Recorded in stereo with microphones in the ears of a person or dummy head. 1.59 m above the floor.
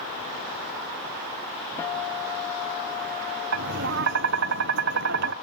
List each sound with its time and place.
1.8 s a guitar: 15° left (ahead or behind), 1.5 m
3.5 s tapping: 60° right (ahead or behind), 1.1 m